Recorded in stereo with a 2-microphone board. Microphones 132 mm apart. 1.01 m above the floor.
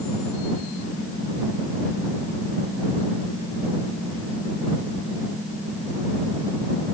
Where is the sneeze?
No sneeze in this recording.